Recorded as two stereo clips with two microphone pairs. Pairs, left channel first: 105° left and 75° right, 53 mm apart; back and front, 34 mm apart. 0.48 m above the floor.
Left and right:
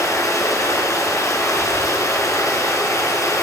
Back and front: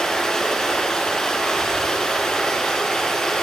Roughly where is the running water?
Left.